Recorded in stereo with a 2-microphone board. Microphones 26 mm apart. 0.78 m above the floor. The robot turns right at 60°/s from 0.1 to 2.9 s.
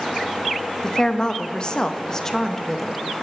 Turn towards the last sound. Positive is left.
turn(degrees=175)